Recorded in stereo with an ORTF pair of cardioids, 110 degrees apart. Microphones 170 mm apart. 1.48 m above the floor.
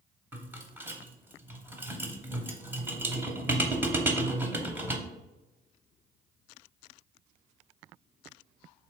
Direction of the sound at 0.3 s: 10° right.